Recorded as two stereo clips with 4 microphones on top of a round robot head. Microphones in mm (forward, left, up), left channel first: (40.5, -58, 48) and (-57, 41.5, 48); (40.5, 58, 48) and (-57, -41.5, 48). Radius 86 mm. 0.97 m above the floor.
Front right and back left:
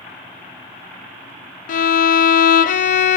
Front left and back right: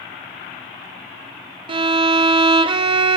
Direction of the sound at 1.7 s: 75° right.